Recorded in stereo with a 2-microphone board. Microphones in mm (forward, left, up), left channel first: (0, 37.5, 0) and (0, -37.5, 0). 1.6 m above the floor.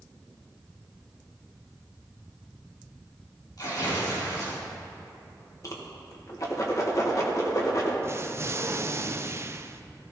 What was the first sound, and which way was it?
Tearing paper, 60° left (ahead or behind).